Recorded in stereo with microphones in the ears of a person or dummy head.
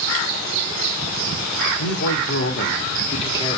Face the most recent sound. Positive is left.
turn(degrees=15)  # may be behind; listen again after turning